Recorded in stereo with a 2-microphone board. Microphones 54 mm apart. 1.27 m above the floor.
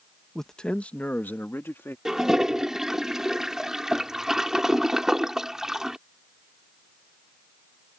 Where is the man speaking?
5° left (ahead or behind); by 1.9 s 45° left (ahead or behind).